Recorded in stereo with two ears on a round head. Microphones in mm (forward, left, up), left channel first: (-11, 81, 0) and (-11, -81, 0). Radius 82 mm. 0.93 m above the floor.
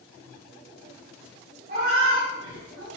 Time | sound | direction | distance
1.7 | a cat meowing | 50° right (ahead or behind) | 2 m